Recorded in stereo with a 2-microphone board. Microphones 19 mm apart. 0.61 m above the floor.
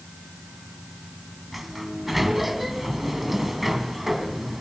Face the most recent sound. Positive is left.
turn(degrees=-5)  # may be behind; listen again after turning